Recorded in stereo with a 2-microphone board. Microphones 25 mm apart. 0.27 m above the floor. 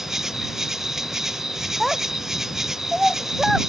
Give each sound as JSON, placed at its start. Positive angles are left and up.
{"t": 0.0, "sound": "an insect", "side_deg": -20}
{"t": 1.8, "sound": "a child speaking", "side_deg": -5}